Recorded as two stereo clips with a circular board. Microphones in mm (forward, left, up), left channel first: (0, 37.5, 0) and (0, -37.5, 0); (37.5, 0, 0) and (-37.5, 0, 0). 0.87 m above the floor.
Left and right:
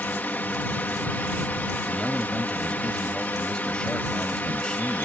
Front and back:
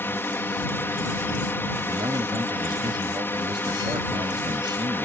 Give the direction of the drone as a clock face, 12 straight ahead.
11 o'clock.